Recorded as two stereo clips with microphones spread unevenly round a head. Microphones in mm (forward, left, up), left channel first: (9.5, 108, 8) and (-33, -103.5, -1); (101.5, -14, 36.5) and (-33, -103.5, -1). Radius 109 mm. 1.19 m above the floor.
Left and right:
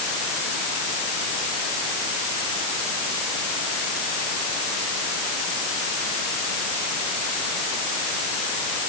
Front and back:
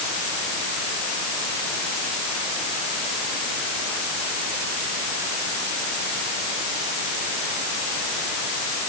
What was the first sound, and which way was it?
Only background noise.